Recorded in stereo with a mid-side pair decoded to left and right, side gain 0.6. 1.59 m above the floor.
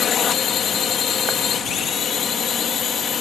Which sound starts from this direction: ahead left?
A drone, at 0.0 s.